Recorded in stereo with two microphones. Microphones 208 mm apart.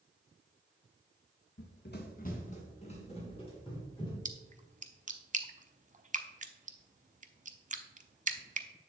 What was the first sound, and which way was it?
Running footsteps, 65° left (ahead or behind).